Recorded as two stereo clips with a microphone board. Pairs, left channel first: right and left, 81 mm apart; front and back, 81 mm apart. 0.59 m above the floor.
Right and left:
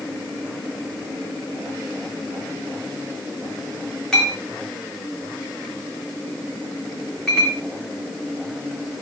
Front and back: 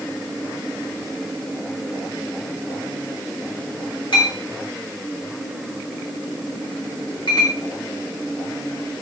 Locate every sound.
4.1 s a clink: 10° right, 4.5 m